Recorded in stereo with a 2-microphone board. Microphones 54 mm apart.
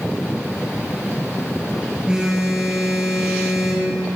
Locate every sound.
2.1 s a phone buzzing: 15° right (ahead or behind), 3 m